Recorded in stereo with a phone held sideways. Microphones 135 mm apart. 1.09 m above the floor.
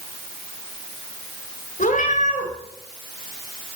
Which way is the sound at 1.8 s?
75° left (ahead or behind).